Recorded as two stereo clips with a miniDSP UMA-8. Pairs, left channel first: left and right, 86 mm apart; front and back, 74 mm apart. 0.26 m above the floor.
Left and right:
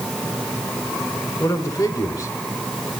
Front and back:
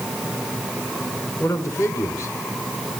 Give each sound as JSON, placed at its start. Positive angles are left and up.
{"t": 1.4, "sound": "a man speaking", "azimuth_deg": 40, "distance_m": 3.0}